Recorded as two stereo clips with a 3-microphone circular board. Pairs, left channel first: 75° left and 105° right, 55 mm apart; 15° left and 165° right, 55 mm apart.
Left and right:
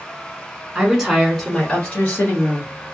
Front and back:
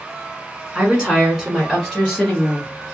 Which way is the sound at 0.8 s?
135° right.